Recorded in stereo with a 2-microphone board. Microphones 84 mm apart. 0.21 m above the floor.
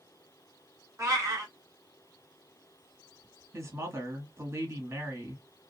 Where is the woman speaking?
30° right (ahead or behind), 1.3 m.